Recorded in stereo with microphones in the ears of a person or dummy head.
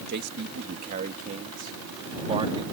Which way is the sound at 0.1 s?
55° right (ahead or behind).